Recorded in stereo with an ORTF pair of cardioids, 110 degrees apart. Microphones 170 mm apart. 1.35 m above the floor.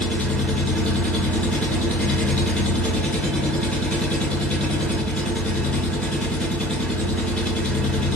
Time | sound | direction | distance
0.0 | an engine running | 5° left | 0.8 m